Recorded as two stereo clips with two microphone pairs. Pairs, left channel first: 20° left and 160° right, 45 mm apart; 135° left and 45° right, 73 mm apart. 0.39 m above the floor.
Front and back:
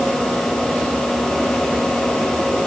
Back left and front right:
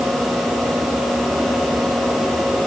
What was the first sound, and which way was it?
Only background noise.